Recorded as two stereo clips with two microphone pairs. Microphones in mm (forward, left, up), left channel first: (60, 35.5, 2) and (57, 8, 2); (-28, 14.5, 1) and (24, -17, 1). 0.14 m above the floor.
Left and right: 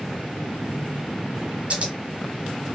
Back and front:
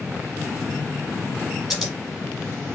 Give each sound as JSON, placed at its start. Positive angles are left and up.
{"t": 1.7, "sound": "scissors", "azimuth_deg": -115, "distance_m": 1.2}